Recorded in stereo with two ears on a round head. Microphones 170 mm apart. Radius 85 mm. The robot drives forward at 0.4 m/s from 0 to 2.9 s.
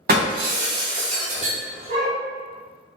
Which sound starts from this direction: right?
Breaking glass, at 0.1 s.